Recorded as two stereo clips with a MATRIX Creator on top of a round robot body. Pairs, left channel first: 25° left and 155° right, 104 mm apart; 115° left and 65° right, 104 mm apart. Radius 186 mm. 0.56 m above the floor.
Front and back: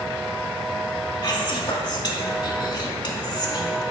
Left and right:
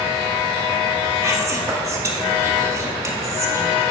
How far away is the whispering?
About 1.9 m.